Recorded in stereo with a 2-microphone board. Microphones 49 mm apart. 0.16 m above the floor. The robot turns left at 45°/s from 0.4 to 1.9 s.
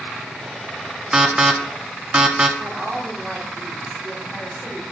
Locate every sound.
1.1 s an alarm: 15° right (ahead or behind), 0.8 m; by 2.5 s 20° right (ahead or behind), 0.8 m
2.6 s a woman speaking: 30° right (ahead or behind), 3 m